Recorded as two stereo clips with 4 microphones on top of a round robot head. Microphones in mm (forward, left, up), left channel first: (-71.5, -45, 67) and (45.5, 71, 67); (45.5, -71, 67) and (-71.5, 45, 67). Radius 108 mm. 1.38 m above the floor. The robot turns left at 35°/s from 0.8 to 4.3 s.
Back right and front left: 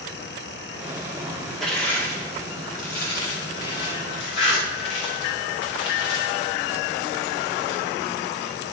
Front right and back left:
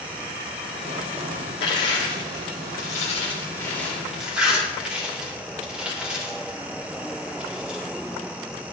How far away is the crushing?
About 2 m.